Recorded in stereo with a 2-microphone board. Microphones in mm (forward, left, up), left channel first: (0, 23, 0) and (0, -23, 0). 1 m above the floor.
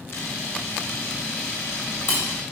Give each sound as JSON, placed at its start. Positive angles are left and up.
{"t": 0.1, "sound": "a camera shutter", "side_deg": 70, "distance_m": 3.5}